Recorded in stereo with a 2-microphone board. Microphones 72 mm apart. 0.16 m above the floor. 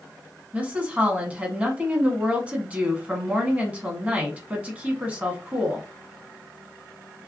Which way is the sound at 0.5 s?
20° right (ahead or behind).